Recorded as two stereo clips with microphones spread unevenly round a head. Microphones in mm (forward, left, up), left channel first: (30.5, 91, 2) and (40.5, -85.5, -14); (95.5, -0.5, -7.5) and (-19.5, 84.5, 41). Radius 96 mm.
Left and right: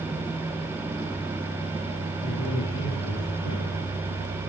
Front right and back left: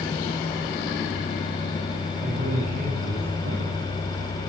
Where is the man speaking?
125° left, 6.5 m; by 3.7 s 130° left, 8.5 m.